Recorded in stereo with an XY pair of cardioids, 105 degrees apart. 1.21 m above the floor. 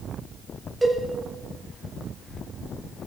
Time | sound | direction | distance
0.8 | a cowbell | 10° right | 3 m